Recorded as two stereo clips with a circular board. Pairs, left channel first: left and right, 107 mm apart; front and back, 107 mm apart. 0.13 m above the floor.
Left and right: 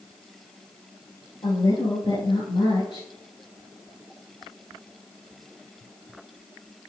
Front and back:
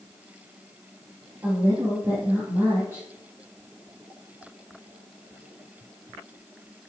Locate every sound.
1.4 s a woman speaking: 120° left, 4 m